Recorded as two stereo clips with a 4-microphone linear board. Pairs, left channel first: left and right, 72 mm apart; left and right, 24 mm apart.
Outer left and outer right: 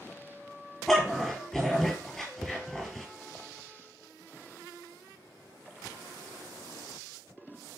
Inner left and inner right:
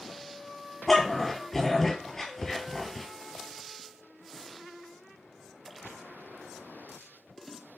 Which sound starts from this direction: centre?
A dog barking, at 0.9 s.